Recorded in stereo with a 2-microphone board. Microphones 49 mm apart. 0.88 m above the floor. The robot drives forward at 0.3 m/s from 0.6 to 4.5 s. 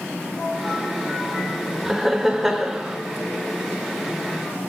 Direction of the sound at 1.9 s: 5° right (ahead or behind).